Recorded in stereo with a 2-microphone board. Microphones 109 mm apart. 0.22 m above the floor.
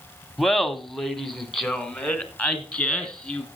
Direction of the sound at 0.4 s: Centre (ahead or behind).